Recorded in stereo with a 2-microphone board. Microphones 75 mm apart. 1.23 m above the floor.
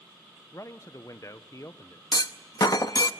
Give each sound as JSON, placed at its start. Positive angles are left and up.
{"t": 0.5, "sound": "a man speaking", "side_deg": 45, "distance_m": 0.8}
{"t": 2.1, "sound": "a clunk", "side_deg": 55, "distance_m": 0.8}